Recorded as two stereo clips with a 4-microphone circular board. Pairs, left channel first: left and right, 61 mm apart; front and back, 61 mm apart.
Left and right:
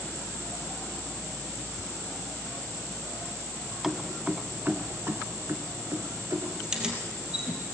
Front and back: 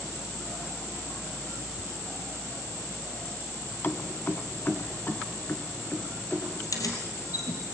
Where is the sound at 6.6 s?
10° right, 3.5 m.